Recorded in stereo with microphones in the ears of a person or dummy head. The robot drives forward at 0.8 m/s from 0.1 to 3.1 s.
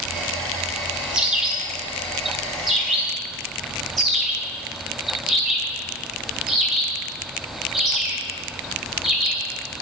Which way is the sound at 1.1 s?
5° right (ahead or behind).